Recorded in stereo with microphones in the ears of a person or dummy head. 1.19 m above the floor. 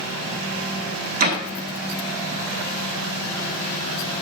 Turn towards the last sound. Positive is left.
turn(degrees=-45)  # may be behind; listen again after turning